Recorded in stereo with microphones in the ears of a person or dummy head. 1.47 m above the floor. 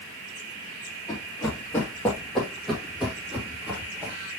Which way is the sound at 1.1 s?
20° left (ahead or behind).